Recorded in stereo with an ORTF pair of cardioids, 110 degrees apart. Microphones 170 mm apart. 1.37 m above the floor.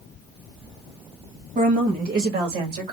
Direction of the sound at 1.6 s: 50° right.